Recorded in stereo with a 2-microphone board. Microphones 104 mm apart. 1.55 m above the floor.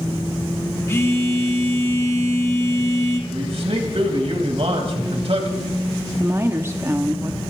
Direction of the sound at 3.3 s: 70° right (ahead or behind).